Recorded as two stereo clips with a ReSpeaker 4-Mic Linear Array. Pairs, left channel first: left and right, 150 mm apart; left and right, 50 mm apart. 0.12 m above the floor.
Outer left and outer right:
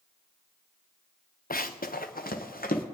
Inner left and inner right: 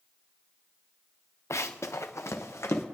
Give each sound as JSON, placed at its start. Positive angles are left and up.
{"t": 1.5, "sound": "running footsteps", "side_deg": 70, "distance_m": 0.7}